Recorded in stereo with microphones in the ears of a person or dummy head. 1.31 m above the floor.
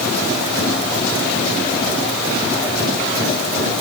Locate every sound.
Only background noise.